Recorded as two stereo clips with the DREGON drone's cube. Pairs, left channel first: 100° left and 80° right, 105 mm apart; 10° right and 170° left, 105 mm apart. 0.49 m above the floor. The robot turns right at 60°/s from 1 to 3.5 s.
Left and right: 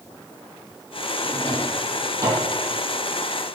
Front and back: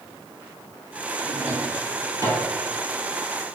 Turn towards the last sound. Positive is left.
turn(degrees=-60)